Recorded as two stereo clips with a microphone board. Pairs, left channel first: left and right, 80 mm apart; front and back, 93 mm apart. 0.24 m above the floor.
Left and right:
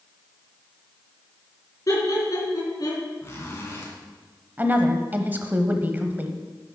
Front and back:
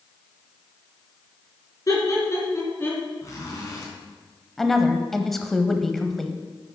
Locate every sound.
1.9 s laughter: 50° left, 3.5 m; by 3.1 s 70° left, 3 m
3.2 s a zipper: 40° left, 3 m
4.6 s a woman speaking: 80° right, 0.9 m